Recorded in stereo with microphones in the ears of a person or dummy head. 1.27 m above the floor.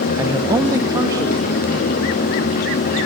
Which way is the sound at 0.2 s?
15° right (ahead or behind).